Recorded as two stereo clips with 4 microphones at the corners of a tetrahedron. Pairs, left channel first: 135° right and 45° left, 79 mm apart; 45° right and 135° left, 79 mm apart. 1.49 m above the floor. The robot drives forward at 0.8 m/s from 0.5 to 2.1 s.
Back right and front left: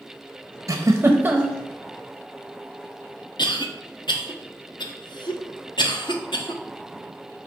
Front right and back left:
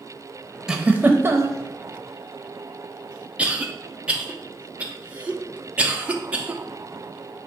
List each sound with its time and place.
0.7 s a giggle: 55° left, 0.9 m; by 1.6 s 125° left, 0.9 m
3.4 s a cough: 150° right, 1.0 m